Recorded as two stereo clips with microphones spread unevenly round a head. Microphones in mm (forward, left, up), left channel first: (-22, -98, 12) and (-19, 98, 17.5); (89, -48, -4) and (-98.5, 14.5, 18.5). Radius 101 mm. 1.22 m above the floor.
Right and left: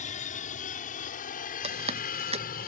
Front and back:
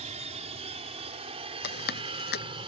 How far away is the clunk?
No clunk in this recording.